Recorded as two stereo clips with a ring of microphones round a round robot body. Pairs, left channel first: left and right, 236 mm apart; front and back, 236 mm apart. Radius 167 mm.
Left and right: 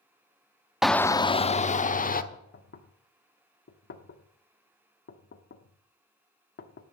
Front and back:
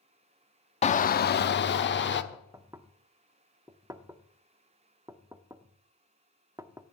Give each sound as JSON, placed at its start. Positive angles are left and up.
{"t": 0.8, "sound": "a shout", "azimuth_deg": -5, "distance_m": 0.6}
{"t": 2.3, "sound": "knocking", "azimuth_deg": 105, "distance_m": 1.0}